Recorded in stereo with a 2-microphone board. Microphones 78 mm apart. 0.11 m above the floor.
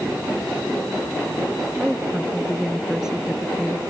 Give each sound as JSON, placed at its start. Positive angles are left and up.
{"t": 1.8, "sound": "a woman speaking", "side_deg": -5}